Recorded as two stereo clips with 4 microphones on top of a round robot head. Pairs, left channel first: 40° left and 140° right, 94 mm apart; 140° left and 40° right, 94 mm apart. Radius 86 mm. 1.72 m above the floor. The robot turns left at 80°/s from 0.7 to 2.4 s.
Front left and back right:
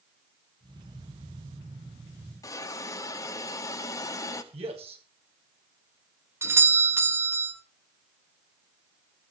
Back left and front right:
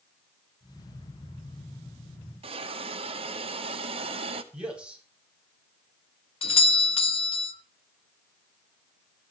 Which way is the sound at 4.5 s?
120° right.